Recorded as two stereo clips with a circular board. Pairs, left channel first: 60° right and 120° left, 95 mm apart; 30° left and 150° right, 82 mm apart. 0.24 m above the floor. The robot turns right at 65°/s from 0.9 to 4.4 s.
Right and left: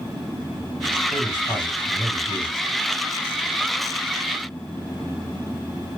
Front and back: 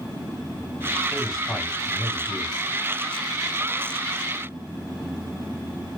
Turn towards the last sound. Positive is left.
turn(degrees=145)